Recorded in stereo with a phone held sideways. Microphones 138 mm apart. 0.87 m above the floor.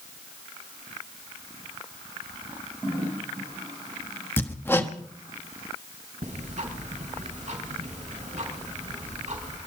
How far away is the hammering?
About 1.1 m.